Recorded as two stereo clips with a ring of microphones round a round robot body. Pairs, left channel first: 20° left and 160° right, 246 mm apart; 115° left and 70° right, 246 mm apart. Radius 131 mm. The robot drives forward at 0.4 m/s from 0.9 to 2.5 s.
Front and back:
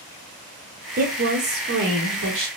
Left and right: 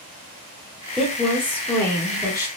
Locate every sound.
1.0 s a woman speaking: 160° right, 0.9 m; by 2.5 s 170° right, 1.3 m